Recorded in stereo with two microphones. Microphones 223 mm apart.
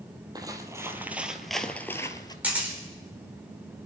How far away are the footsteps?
About 1.6 m.